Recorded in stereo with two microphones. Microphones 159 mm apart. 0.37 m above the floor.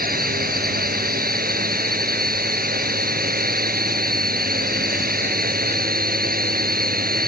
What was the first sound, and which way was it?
A drone, 70° right (ahead or behind).